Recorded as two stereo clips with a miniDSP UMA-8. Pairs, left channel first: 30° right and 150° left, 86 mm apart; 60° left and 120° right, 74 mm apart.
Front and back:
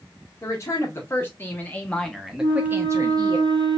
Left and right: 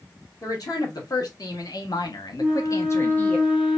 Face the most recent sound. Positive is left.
turn(degrees=165)